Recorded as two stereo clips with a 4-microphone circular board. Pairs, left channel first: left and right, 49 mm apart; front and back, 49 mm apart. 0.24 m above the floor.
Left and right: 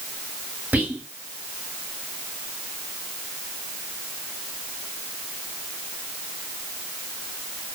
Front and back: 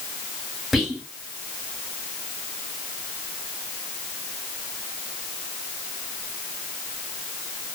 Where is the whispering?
85° right, 1.3 m.